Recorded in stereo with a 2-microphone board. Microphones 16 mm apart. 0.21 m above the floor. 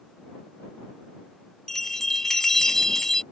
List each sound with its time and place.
1.7 s a bell: 25° left (ahead or behind)